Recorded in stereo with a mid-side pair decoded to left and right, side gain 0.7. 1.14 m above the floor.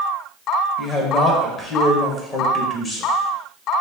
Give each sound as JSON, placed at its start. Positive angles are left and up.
{"t": 0.8, "sound": "a man speaking", "azimuth_deg": 35, "distance_m": 1.6}